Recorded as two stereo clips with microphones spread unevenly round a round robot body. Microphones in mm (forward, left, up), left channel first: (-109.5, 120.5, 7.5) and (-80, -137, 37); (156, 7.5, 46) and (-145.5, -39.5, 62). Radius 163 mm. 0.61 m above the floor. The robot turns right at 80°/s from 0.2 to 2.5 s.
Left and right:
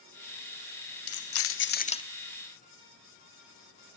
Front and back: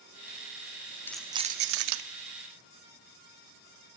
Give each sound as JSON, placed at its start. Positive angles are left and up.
{"t": 1.1, "sound": "keys jangling", "azimuth_deg": 90, "distance_m": 0.6}